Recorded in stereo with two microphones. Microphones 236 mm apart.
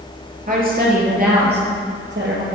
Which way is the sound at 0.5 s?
35° right (ahead or behind).